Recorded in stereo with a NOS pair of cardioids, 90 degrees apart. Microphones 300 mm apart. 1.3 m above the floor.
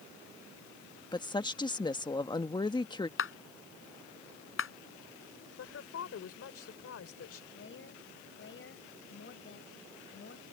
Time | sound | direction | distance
1.1 | a woman speaking | 15° left | ?
3.2 | a clap | 45° left | ?
5.6 | a woman speaking | 55° left | ?
7.5 | a woman speaking | 45° left | ?